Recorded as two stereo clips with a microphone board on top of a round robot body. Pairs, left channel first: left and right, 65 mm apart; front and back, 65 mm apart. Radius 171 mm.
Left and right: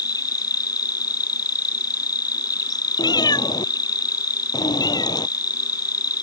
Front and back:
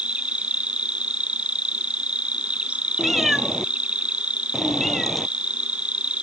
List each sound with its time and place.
0.0 s an insect: 110° left
3.0 s a cat meowing: 90° left